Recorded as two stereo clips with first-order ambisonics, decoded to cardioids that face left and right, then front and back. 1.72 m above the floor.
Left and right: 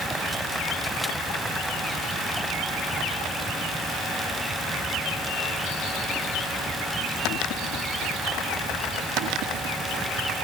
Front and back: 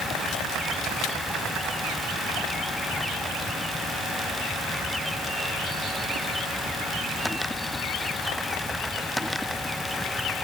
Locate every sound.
Only background noise.